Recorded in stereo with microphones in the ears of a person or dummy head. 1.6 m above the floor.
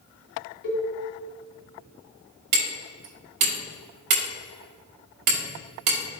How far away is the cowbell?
About 1.4 m.